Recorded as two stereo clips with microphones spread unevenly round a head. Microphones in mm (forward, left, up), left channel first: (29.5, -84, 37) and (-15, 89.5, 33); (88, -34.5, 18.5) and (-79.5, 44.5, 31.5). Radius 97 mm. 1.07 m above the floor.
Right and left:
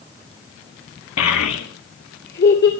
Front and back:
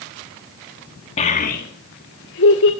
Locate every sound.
1.2 s a child speaking: 85° right, 1.3 m; by 2.7 s 45° right, 2 m